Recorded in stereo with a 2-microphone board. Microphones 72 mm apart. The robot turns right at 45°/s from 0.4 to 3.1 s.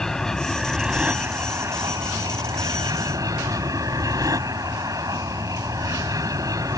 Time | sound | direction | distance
0.0 | an aircraft | 170° left | ?